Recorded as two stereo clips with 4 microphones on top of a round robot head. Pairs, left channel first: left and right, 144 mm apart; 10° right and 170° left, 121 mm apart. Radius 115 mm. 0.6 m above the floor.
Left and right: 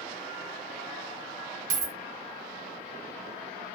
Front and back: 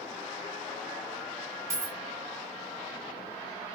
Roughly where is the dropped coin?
Behind right.